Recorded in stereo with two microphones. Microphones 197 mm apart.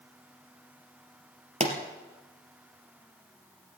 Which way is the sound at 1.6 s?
35° right (ahead or behind).